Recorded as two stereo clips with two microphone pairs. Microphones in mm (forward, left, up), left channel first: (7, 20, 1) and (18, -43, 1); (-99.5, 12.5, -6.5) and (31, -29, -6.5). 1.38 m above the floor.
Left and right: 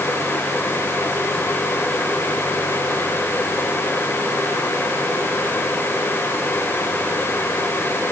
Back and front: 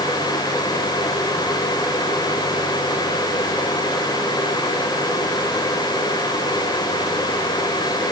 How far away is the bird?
I don't hear a bird.